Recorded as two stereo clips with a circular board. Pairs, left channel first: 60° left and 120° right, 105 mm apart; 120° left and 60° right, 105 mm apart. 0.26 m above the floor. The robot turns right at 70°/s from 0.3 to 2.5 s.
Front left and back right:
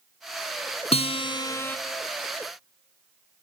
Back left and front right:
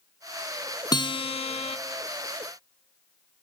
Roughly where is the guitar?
Left.